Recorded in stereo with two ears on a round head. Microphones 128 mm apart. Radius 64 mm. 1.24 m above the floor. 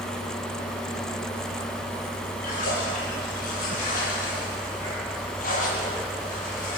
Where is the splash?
65° left (ahead or behind), 10 m.